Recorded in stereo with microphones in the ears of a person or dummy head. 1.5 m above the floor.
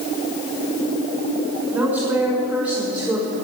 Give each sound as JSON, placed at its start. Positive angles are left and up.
{"t": 1.7, "sound": "a woman speaking", "side_deg": -5, "distance_m": 7.0}